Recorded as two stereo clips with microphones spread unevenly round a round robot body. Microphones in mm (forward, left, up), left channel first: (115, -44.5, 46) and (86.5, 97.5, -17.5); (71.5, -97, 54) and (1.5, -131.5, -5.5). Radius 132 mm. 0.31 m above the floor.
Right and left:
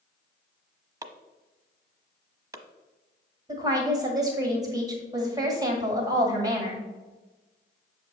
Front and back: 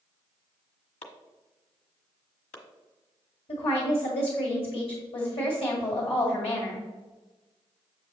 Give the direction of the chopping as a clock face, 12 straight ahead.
10 o'clock.